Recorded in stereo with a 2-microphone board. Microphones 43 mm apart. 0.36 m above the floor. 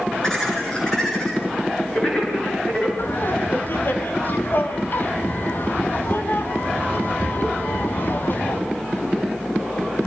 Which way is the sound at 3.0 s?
50° left (ahead or behind).